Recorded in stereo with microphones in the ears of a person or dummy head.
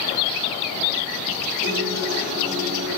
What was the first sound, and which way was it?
A guitar, 45° right (ahead or behind).